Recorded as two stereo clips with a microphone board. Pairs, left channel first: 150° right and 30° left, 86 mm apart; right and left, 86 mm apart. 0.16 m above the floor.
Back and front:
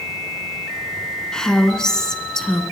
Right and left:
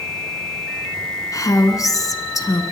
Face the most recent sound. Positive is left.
turn(degrees=-70)